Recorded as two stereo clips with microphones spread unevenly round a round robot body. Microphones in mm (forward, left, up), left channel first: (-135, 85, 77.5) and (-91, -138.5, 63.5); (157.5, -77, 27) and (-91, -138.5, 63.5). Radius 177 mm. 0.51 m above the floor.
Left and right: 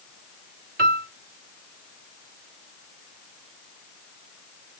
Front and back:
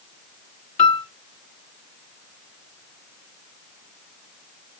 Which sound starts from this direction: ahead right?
A piano, at 0.8 s.